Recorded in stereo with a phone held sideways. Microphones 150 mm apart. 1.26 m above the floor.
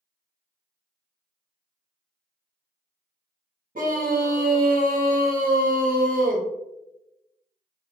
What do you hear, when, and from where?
3.8 s a scream: 65° right (ahead or behind), 0.8 m